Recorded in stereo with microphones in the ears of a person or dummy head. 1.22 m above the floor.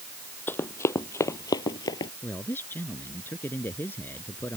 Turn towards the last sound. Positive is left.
turn(degrees=10)  # may be behind; listen again after turning